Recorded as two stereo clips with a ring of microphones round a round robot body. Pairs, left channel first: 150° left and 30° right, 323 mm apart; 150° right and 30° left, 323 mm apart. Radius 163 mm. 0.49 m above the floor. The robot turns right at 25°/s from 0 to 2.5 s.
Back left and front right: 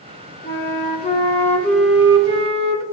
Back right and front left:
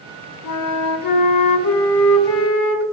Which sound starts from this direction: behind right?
A flute, at 0.4 s.